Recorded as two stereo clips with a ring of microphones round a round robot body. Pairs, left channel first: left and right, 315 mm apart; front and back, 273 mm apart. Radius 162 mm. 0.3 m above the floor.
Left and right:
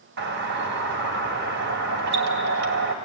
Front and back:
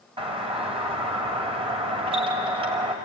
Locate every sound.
0.2 s a doorbell: 120° right, 2.5 m